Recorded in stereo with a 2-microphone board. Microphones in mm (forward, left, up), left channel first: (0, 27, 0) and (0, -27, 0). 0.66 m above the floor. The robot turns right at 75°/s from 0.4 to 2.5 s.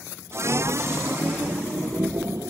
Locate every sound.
Only background noise.